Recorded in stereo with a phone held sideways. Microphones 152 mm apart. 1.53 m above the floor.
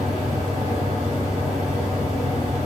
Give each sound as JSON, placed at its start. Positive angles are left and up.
{"t": 0.0, "sound": "a fan", "side_deg": 45, "distance_m": 1.9}